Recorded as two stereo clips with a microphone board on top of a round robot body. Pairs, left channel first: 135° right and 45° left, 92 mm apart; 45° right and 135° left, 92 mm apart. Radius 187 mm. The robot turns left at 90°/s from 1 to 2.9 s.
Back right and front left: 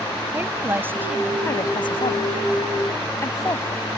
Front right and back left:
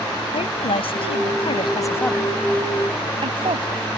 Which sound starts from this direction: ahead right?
A woman speaking, at 0.3 s.